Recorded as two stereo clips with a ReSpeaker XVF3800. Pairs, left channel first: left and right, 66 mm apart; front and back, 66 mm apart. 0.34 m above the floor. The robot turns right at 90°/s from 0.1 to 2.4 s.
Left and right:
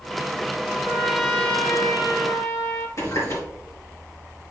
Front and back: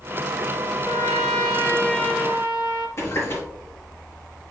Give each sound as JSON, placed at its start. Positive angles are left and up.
{"t": 0.8, "sound": "a trumpet", "azimuth_deg": -35, "distance_m": 1.8}
{"t": 3.0, "sound": "a running tap", "azimuth_deg": 45, "distance_m": 4.0}